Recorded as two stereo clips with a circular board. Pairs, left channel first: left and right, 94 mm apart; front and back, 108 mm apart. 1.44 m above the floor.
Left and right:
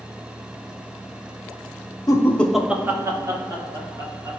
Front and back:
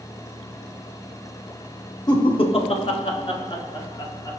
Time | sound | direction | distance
2.1 | laughter | 45° left | 0.5 m